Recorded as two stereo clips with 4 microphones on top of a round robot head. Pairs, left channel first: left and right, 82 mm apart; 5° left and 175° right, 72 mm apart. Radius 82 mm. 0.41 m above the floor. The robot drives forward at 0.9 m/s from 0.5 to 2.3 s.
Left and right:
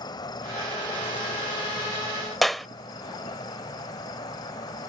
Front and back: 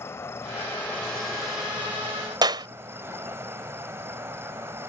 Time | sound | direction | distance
0.0 | an insect | 60° left | ?
2.4 | a clap | straight behind | ?